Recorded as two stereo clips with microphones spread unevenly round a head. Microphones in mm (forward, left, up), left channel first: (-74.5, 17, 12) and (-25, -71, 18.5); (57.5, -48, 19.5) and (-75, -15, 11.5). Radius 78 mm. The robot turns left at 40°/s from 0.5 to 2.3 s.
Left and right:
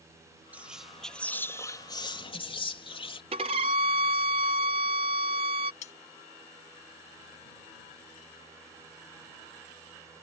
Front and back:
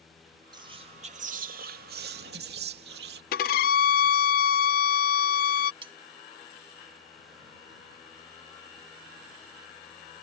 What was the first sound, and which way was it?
Whispering, 135° right.